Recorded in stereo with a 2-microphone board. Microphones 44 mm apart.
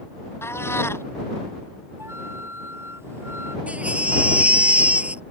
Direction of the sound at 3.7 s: 30° right (ahead or behind).